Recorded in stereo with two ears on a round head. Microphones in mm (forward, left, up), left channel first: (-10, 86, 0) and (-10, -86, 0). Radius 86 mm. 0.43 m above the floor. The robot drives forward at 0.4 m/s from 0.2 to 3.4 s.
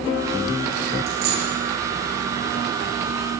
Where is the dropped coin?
60° right (ahead or behind), 8.5 m; by 1.5 s 55° right (ahead or behind), 8.5 m.